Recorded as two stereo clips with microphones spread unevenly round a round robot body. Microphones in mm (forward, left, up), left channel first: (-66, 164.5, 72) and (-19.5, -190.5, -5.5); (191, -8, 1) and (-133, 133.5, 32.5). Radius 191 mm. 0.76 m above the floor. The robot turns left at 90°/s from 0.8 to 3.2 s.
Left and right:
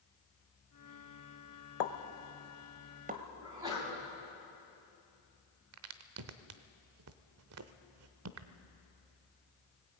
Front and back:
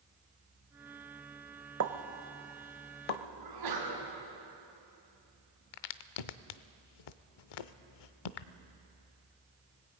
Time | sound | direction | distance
1.8 | a pop | 110° left | 1.1 m
3.4 | a sneeze | 160° right | 6 m
5.7 | a crack | 25° right | 0.7 m